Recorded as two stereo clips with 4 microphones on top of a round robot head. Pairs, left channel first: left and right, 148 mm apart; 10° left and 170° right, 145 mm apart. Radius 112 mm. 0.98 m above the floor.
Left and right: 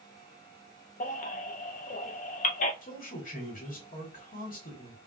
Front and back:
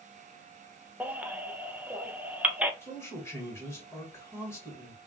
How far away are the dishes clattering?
I don't hear dishes clattering.